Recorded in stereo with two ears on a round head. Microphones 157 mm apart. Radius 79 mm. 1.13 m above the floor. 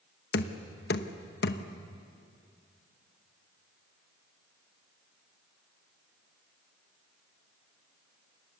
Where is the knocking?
60° left (ahead or behind), 1.1 m.